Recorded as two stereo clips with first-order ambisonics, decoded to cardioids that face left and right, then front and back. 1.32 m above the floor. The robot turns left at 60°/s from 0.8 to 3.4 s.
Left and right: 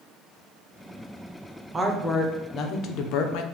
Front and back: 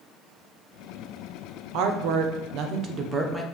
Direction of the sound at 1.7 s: 165° right.